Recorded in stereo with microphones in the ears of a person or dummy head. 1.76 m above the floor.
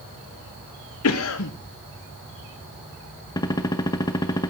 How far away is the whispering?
No whispering in this recording.